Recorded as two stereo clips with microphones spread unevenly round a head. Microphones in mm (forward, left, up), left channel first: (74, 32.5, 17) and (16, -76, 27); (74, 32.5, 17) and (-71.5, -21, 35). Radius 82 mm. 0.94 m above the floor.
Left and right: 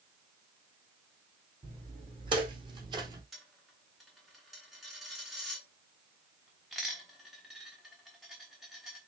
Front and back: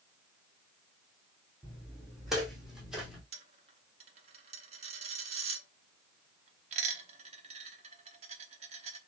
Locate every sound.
1.6 s footsteps: 75° right, 3 m; by 3.2 s 80° right, 1.3 m
3.3 s a dropped coin: 155° left, 0.8 m